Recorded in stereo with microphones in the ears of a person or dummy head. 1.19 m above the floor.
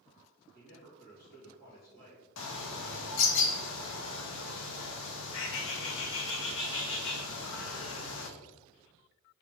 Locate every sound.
0.5 s a man speaking: 50° left (ahead or behind), 1.8 m
2.4 s a bird: 70° left (ahead or behind), 0.5 m